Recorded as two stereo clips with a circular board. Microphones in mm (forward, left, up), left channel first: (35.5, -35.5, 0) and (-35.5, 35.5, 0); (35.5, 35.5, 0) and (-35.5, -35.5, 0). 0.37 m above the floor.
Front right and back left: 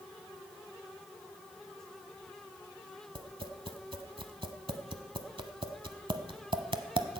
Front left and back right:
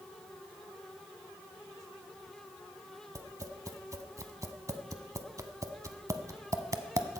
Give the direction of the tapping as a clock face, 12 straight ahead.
6 o'clock.